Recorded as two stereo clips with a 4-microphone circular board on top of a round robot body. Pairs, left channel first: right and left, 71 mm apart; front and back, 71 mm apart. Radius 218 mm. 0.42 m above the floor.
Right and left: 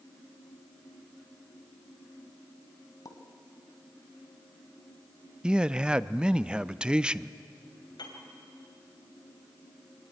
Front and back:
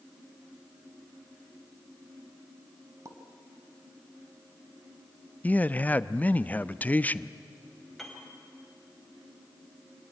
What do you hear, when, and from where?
3.0 s a pop: 130° right, 2.0 m
5.4 s a man speaking: 30° left, 0.7 m
8.0 s a piano: 85° right, 3 m